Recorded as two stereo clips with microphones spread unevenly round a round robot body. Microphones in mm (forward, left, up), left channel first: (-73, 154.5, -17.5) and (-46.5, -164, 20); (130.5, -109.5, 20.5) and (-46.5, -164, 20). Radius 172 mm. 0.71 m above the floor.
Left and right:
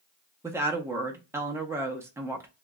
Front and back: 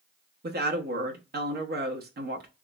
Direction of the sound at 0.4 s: 170° right.